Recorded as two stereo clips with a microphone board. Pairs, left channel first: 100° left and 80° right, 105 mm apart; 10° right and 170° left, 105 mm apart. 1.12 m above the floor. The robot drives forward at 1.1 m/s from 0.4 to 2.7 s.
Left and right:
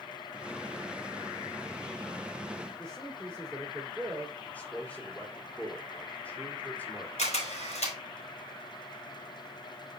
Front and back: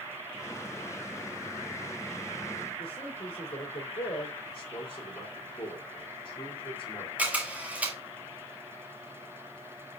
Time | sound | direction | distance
2.8 | a man speaking | 15° left | 3 m
4.4 | a man speaking | 25° left | 3 m
7.2 | a camera shutter | 90° left | 3.5 m